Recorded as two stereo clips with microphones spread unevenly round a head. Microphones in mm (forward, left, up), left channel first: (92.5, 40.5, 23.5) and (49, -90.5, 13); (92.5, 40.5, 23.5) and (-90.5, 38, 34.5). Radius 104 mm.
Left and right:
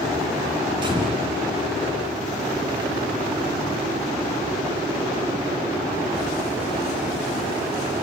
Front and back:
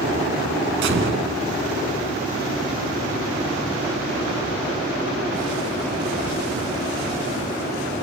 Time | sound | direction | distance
0.8 | a gunshot | 175° right | 2.5 m